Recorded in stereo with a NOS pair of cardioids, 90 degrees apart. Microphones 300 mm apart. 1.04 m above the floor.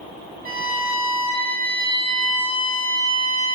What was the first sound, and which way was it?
A violin, 30° right.